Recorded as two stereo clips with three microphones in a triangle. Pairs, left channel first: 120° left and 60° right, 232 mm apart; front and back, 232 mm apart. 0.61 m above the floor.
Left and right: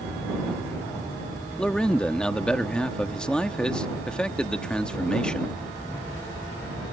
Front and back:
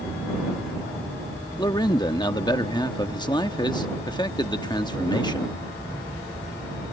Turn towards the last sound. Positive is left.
turn(degrees=40)